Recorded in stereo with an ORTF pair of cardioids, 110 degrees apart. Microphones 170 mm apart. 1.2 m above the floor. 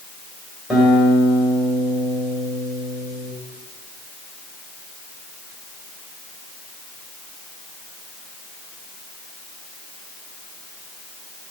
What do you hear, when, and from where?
0.7 s a guitar: straight ahead, 3 m